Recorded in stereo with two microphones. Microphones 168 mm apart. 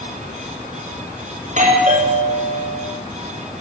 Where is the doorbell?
45° right (ahead or behind), 5.5 m.